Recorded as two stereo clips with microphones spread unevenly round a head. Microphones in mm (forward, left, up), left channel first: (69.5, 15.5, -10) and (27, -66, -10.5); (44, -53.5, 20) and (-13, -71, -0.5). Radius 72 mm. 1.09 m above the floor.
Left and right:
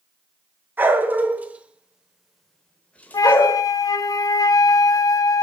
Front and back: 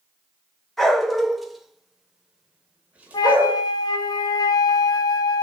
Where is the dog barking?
55° right, 1.3 m; by 3.6 s 115° left, 1.0 m.